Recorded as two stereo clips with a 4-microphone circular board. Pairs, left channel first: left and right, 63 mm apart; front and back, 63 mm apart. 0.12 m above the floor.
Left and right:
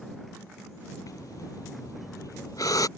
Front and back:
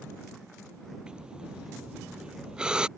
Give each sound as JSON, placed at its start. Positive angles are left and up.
{"t": 1.1, "sound": "breathing", "azimuth_deg": 105}